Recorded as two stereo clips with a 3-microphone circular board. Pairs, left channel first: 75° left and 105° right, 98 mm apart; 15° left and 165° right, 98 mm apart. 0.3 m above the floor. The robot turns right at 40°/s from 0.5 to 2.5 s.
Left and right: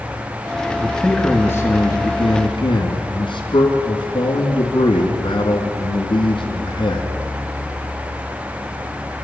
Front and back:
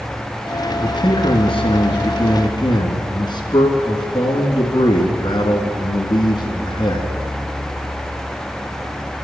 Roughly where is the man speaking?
Ahead.